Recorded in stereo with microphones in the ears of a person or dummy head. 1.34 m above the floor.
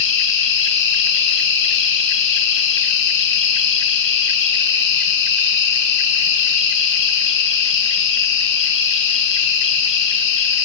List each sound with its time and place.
0.0 s an insect: 65° left (ahead or behind), 2.0 m